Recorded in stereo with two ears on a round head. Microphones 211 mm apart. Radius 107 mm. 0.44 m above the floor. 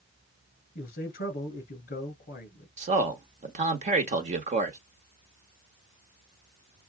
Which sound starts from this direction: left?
A man speaking, at 0.8 s.